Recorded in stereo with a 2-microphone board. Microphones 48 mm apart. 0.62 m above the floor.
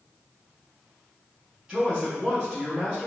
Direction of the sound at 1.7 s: 20° right (ahead or behind).